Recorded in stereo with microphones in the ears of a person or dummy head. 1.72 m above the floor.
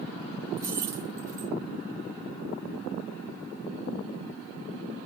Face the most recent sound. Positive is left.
turn(degrees=-20)  # may be behind; listen again after turning